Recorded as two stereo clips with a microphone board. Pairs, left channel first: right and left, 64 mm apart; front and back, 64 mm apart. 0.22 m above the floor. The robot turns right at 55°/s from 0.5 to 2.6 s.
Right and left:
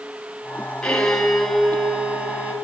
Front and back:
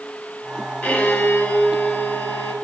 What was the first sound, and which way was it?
A violin, 25° right.